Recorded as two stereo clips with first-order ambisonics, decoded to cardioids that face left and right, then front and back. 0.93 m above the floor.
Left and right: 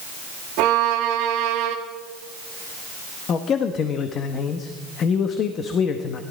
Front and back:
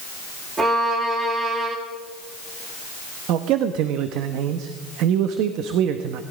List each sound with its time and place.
0.6 s a violin: 110° right, 1.6 m
3.3 s a man speaking: 145° left, 0.8 m